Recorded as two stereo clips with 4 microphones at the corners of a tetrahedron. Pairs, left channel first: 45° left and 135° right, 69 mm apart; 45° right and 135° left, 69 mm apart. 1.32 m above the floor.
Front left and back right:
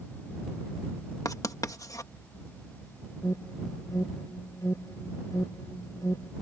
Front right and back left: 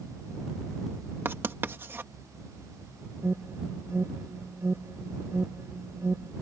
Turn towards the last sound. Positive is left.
turn(degrees=80)